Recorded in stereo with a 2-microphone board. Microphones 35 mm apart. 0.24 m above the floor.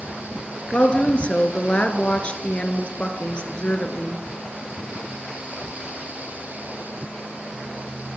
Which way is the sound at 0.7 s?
35° left (ahead or behind).